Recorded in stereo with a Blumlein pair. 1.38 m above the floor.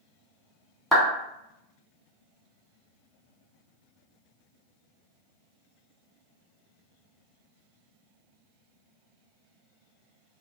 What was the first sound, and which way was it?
A clap, 5° left.